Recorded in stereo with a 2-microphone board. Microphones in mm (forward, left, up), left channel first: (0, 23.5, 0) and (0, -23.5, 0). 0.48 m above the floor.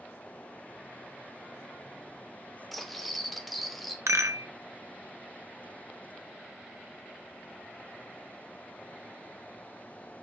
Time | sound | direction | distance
2.7 | cutlery clinking | centre (ahead or behind) | 0.8 m
4.1 | a rattle | 75° right (ahead or behind) | 0.6 m